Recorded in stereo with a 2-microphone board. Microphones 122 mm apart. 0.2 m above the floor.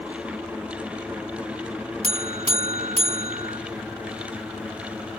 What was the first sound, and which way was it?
A buzzer, 60° right (ahead or behind).